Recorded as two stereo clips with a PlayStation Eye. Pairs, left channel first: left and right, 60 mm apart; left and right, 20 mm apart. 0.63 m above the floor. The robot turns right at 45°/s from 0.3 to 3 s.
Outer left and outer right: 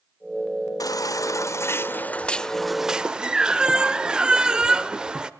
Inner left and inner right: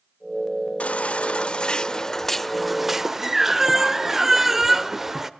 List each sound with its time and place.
0.8 s a baby crying: 95° left, 0.8 m; by 5.3 s 165° right, 0.8 m